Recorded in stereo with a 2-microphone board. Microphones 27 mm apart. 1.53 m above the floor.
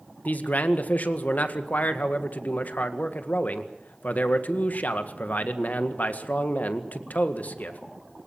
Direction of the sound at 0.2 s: 75° left (ahead or behind).